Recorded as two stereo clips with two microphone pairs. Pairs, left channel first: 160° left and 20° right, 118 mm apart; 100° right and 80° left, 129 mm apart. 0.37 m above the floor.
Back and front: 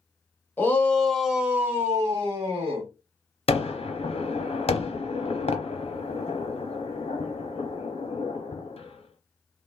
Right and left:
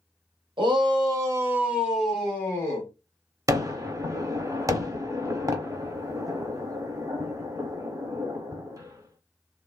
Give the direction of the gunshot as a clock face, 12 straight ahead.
7 o'clock.